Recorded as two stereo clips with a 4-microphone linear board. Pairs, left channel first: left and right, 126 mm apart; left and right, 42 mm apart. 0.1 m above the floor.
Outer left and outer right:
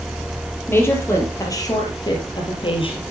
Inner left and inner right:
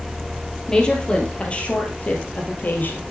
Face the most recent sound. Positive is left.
turn(degrees=45)  # may be behind; listen again after turning